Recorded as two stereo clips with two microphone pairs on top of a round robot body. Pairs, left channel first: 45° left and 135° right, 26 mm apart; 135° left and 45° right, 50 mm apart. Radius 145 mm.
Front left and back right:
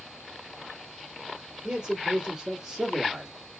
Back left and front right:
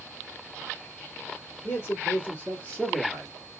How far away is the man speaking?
About 2 m.